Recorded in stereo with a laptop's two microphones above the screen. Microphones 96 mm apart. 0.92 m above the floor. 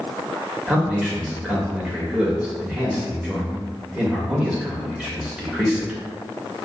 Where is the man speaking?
10° right (ahead or behind), 1.3 m.